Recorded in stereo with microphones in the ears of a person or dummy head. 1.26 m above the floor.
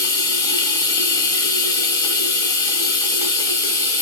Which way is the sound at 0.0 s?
20° left (ahead or behind).